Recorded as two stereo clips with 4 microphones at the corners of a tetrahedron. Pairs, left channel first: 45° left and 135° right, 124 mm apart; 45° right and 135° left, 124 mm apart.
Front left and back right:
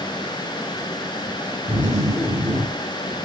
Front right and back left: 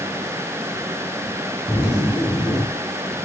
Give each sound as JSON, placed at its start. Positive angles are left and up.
{"t": 1.7, "sound": "a zipper", "azimuth_deg": -145, "distance_m": 6.5}